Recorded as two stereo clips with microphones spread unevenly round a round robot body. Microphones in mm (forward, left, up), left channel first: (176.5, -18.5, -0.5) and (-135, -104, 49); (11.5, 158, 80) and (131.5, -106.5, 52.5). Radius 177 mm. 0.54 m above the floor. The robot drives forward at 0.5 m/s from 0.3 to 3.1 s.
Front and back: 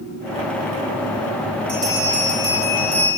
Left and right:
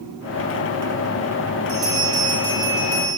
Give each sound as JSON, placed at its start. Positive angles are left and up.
{"t": 1.7, "sound": "a bell", "azimuth_deg": -95, "distance_m": 3.5}